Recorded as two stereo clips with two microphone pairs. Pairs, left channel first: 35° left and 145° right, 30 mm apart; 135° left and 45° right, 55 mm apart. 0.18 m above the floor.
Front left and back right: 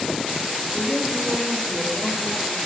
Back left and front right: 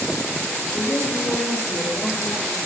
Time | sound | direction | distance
0.7 | a woman speaking | 110° left | 5 m